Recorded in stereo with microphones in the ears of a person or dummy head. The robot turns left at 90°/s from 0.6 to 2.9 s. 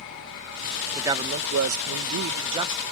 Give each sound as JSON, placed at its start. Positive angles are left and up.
{"t": 0.9, "sound": "a man speaking", "azimuth_deg": -10}